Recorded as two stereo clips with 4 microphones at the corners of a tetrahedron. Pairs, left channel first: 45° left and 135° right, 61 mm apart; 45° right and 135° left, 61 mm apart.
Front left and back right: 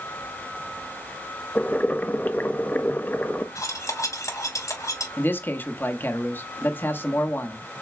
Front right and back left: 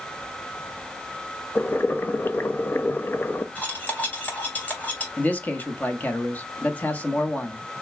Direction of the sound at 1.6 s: 5° right.